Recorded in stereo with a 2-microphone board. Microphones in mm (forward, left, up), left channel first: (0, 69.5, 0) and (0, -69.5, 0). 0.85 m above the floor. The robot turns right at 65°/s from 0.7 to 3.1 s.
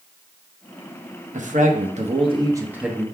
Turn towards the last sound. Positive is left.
turn(degrees=10)